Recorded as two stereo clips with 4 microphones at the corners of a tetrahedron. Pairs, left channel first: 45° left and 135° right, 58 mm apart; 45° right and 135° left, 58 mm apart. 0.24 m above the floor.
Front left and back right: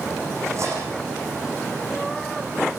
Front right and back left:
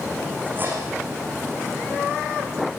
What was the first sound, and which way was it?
Cutlery clinking, 170° right.